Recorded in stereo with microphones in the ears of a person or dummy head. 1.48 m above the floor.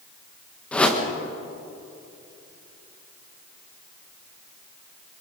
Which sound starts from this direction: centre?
A whoosh, at 0.7 s.